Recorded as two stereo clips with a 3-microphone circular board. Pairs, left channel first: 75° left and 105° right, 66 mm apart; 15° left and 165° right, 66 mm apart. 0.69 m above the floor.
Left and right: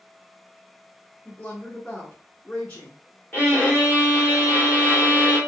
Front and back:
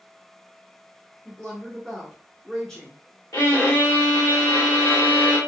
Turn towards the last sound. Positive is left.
turn(degrees=15)